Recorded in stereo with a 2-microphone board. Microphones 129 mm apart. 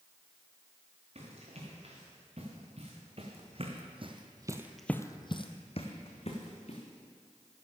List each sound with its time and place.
1.1 s running footsteps: 55° right (ahead or behind), 5 m; by 6.8 s 55° left (ahead or behind), 2.5 m